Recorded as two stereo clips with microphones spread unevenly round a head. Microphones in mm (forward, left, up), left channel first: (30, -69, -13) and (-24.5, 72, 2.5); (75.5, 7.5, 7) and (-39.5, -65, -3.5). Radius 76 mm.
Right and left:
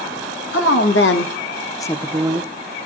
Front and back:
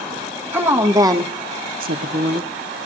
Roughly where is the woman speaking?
Right.